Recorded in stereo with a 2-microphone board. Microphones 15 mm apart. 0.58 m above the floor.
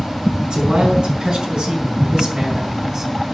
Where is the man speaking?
85° right, 5.5 m; by 3.1 s 40° right (ahead or behind), 4 m.